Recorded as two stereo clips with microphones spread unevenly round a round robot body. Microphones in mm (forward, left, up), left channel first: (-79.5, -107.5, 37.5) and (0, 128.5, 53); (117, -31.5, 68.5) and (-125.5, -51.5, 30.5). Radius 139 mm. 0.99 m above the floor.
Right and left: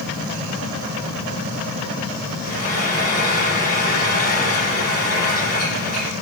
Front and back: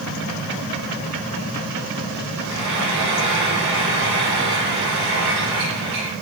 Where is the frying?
170° right, 8.5 m.